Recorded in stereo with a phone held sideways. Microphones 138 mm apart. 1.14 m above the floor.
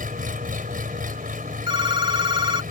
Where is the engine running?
90° right.